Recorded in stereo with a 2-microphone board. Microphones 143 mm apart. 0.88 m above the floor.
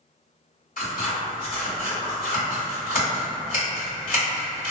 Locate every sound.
0.8 s scissors: 75° left (ahead or behind), 1.7 m